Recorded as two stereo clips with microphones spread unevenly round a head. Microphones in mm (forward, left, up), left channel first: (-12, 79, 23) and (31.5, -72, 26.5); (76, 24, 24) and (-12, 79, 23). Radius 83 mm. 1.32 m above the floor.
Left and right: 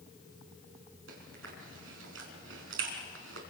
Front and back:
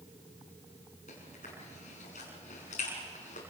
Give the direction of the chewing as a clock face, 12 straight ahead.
3 o'clock.